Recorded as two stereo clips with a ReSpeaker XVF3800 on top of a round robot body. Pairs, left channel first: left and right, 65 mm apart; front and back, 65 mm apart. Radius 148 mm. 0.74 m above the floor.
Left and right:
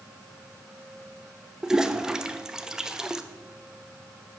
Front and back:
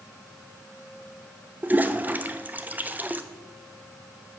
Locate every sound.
1.6 s a toilet flushing: 160° right, 0.7 m